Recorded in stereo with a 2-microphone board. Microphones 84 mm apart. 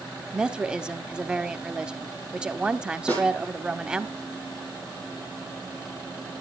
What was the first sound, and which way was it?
A woman speaking, 10° right (ahead or behind).